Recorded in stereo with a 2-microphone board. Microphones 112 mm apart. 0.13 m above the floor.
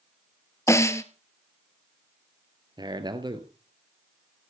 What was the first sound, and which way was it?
A snare drum, 25° left (ahead or behind).